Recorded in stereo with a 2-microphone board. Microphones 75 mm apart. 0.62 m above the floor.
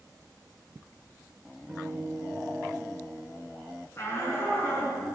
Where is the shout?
40° left (ahead or behind), 6 m.